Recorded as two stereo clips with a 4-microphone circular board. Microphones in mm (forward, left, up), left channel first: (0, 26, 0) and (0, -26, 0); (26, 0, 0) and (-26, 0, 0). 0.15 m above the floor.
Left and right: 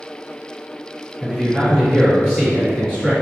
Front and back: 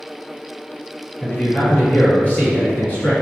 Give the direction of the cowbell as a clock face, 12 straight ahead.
I don't hear a cowbell.